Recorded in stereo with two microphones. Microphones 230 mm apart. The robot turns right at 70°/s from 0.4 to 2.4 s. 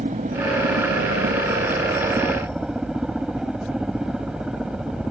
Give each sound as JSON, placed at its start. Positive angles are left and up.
{"t": 0.0, "sound": "a helicopter", "azimuth_deg": -145}